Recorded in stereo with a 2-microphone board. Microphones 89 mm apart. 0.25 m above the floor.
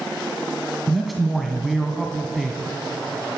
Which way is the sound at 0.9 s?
Centre (ahead or behind).